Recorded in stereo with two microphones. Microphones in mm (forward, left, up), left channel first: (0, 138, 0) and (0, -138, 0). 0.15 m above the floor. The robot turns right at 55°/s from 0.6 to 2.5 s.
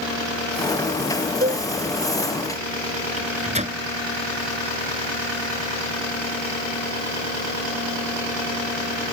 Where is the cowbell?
35° right (ahead or behind); by 1.7 s 25° right (ahead or behind).